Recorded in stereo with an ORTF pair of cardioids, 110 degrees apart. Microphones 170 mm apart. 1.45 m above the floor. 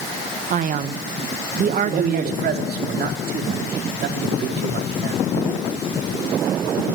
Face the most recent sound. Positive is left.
turn(degrees=-65)